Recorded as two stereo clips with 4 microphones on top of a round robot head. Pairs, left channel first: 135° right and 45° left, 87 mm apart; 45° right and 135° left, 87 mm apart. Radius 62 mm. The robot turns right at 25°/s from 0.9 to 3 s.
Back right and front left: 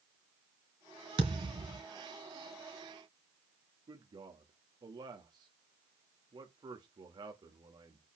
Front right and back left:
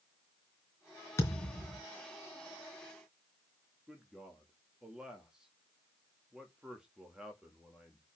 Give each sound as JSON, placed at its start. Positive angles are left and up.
{"t": 1.2, "sound": "a thud", "azimuth_deg": 15, "distance_m": 3.0}
{"t": 3.9, "sound": "a man speaking", "azimuth_deg": 55, "distance_m": 1.7}